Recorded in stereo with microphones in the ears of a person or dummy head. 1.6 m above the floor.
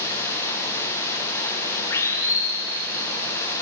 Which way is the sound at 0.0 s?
20° left (ahead or behind).